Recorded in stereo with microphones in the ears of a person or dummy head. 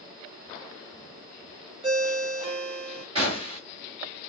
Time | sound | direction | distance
1.8 | a ringtone | 30° right (ahead or behind) | 1.0 m
3.1 | a gunshot | 30° right (ahead or behind) | 1.6 m